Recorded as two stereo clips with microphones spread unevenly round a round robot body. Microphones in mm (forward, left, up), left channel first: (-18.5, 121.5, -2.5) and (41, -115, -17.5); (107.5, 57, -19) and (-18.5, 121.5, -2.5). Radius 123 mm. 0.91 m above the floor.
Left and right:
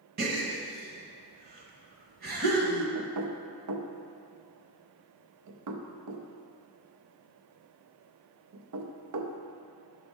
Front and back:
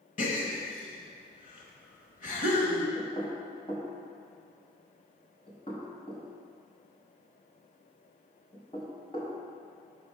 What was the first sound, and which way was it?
A gasp, 30° right.